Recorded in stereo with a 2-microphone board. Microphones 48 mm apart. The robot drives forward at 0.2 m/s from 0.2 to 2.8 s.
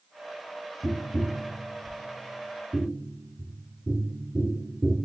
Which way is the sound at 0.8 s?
20° right (ahead or behind).